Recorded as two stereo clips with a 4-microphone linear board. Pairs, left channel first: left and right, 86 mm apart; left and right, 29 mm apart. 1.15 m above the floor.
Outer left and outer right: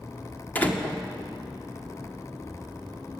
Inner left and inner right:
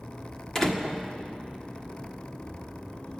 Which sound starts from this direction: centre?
A door slam, at 0.6 s.